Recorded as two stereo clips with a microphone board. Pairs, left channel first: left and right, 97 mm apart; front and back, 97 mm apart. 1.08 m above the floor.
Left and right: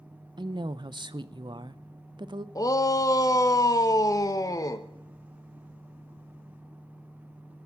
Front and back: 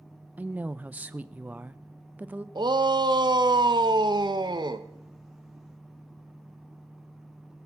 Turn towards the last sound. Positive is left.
turn(degrees=140)